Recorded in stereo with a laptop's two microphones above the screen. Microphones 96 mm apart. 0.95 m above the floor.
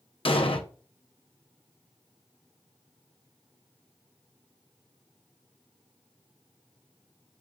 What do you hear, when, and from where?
0.2 s an explosion: 70° left (ahead or behind), 0.7 m